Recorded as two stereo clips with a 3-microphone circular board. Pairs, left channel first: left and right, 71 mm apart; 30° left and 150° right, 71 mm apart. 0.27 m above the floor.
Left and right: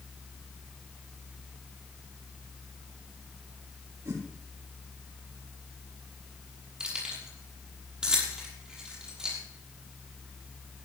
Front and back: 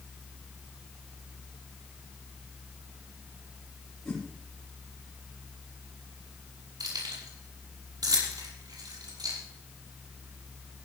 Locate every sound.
4.0 s a whoosh: 55° right, 8.5 m
6.8 s keys jangling: 170° right, 6 m